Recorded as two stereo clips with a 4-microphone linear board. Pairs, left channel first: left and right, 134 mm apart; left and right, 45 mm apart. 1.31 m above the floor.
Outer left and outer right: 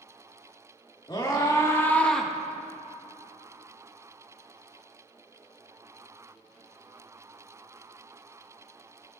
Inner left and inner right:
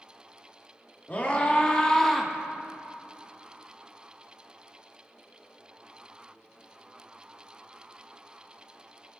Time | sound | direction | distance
1.1 | a scream | 35° left (ahead or behind) | 2.5 m